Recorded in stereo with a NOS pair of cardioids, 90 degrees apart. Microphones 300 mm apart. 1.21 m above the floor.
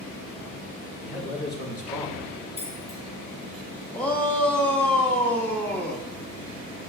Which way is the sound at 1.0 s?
50° left.